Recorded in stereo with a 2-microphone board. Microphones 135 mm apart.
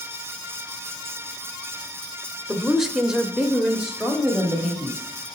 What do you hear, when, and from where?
2.5 s a woman speaking: centre (ahead or behind), 0.9 m; by 5.3 s 5° right (ahead or behind), 1.8 m